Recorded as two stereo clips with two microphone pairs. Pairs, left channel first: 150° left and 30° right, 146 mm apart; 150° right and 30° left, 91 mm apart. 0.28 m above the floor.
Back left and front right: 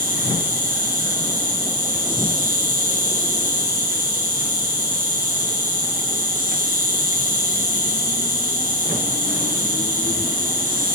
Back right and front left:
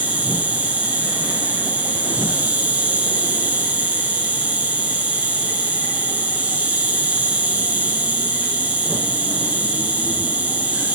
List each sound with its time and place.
0.0 s an insect: 40° right, 5 m